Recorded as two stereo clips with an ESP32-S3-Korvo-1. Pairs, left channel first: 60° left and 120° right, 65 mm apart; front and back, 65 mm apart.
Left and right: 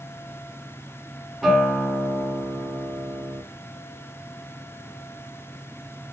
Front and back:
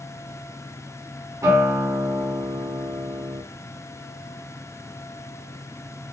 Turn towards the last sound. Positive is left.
turn(degrees=155)